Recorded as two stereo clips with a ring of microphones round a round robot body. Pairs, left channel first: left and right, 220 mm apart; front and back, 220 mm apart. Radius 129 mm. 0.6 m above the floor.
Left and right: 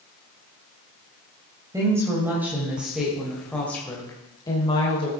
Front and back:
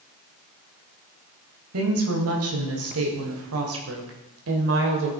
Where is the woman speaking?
165° right, 3 m; by 5.1 s 155° left, 2.5 m.